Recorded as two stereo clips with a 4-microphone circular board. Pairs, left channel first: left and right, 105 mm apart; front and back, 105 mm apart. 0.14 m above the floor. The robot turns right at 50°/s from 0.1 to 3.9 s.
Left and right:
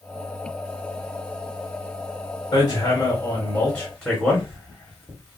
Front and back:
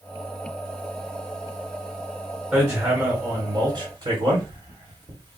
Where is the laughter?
No laughter in this recording.